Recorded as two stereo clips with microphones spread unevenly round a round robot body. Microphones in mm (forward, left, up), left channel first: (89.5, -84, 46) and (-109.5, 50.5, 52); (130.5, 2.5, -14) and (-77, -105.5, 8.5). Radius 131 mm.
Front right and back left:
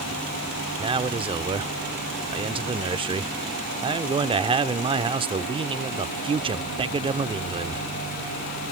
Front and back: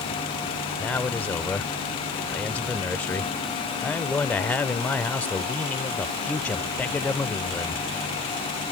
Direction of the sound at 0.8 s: 95° left.